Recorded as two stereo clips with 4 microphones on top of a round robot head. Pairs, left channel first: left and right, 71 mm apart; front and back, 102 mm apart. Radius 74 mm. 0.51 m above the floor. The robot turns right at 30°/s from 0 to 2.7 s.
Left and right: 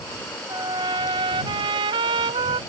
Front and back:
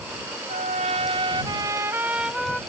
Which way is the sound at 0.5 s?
150° right.